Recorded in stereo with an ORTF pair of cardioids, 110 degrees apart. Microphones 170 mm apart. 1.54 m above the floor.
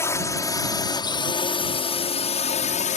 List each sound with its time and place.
0.0 s a drone: 15° left; by 3.0 s 45° left